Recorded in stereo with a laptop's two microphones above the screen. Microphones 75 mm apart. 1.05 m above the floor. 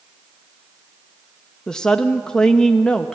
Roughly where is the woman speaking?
Centre.